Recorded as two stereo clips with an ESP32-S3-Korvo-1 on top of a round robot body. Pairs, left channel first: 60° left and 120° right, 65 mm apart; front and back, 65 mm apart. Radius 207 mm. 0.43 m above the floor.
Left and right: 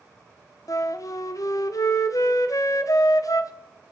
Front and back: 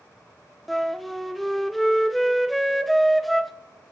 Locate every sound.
0.7 s a flute: 90° left, 0.7 m